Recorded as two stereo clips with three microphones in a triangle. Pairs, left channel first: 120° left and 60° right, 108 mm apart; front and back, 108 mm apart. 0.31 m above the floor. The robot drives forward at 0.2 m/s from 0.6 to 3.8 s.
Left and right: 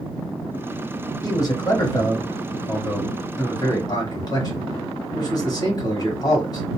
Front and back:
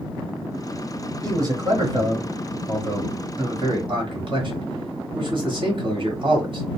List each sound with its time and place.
1.2 s a man speaking: 145° left, 1.1 m; by 6.7 s 160° left, 1.5 m